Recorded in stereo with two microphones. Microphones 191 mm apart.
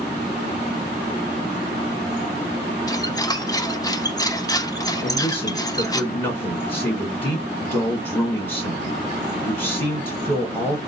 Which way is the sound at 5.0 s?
10° left (ahead or behind).